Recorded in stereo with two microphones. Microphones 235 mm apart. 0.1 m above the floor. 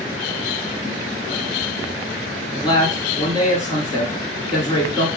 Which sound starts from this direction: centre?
A man speaking, at 2.5 s.